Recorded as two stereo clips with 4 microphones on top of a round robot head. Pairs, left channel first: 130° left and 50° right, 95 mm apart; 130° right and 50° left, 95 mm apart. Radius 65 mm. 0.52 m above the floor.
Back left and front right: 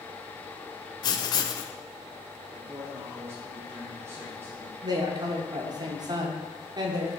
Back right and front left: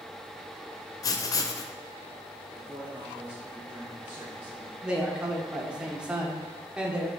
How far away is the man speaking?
About 1.4 m.